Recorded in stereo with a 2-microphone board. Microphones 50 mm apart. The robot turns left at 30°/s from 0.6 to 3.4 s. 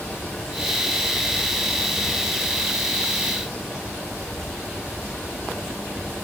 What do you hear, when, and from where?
0.0 s a helicopter: 60° left (ahead or behind); by 6.2 s 25° right (ahead or behind)